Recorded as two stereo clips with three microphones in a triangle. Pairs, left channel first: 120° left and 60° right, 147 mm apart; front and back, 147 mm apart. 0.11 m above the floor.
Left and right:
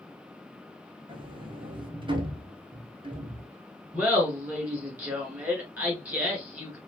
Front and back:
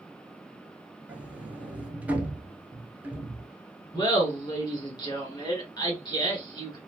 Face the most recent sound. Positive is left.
turn(degrees=5)